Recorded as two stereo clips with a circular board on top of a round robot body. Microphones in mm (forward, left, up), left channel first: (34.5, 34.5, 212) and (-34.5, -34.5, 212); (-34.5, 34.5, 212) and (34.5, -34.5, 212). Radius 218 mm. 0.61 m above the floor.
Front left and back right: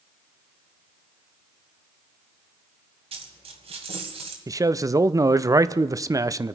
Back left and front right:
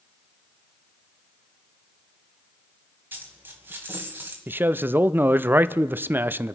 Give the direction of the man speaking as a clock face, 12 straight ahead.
3 o'clock.